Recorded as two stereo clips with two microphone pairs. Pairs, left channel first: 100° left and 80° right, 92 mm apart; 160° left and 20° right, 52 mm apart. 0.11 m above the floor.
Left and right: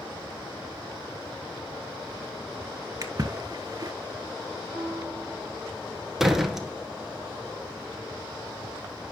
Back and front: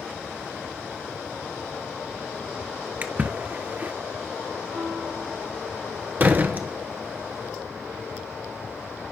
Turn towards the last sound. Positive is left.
turn(degrees=5)